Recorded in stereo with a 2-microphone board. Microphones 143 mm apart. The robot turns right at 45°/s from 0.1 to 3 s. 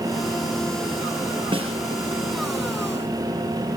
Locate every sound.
1.5 s a snare drum: 35° right (ahead or behind), 6 m; by 1.8 s 45° right (ahead or behind), 6 m